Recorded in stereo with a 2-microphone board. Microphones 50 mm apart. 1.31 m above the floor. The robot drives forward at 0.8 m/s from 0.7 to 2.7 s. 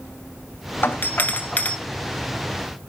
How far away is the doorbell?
About 1.2 m.